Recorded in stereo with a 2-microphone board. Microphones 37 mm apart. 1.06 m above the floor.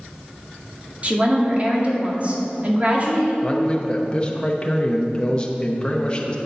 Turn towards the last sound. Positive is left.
turn(degrees=20)  # may be behind; listen again after turning